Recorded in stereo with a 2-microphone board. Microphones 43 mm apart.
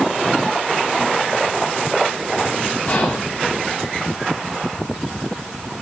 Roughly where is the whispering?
Left.